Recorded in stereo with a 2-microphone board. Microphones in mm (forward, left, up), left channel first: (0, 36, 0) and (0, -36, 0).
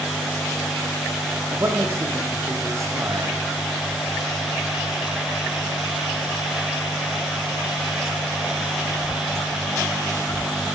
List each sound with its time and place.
1.5 s a man speaking: 40° right (ahead or behind), 8.5 m